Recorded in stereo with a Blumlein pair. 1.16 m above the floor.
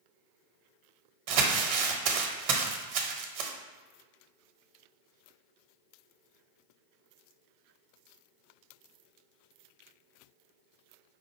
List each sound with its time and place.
1.3 s crumpling: 45° right, 0.8 m